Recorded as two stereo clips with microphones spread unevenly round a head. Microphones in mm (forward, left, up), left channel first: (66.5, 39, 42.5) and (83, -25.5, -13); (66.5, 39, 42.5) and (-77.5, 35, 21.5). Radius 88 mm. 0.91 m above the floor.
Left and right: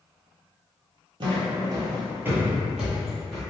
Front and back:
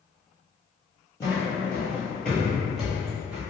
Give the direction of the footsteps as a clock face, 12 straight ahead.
1 o'clock.